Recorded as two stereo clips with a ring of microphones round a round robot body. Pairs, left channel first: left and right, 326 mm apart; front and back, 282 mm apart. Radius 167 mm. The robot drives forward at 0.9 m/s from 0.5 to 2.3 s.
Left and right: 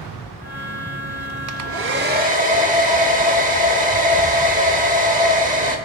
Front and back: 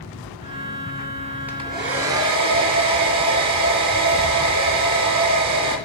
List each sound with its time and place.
1.5 s a hair dryer: 95° right, 0.5 m; by 5.8 s 155° right, 0.9 m